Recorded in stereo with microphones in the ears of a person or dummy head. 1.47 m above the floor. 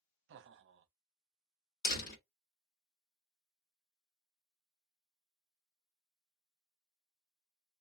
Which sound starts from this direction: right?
Laughter, at 0.3 s.